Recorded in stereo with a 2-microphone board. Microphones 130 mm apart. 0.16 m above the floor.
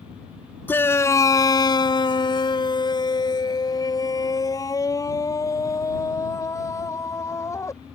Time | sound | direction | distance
0.7 | a shout | 15° left (ahead or behind) | ?